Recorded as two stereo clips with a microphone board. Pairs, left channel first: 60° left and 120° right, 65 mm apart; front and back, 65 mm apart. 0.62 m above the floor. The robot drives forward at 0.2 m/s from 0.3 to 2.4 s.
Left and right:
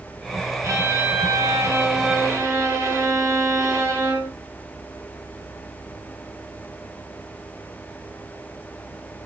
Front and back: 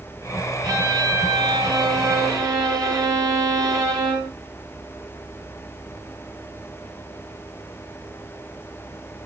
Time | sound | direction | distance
0.6 | a violin | 165° right | 1.6 m